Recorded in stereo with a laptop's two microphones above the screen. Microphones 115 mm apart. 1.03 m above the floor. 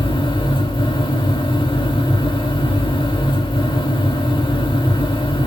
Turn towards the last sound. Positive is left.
turn(degrees=50)  # may be behind; listen again after turning